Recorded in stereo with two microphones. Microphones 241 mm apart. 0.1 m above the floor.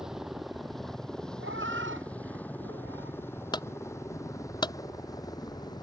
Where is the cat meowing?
55° right (ahead or behind).